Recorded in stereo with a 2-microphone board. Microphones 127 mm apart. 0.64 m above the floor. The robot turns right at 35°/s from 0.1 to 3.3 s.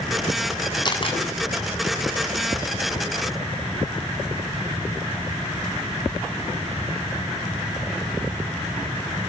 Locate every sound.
0.8 s a camera shutter: 35° left (ahead or behind), 6.5 m; by 1.2 s 50° left (ahead or behind), 6.5 m